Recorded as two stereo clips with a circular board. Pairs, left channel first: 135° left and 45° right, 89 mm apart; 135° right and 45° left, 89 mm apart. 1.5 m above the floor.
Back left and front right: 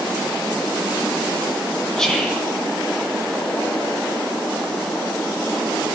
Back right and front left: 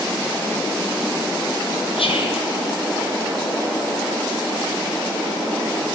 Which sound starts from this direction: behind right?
Whispering, at 2.0 s.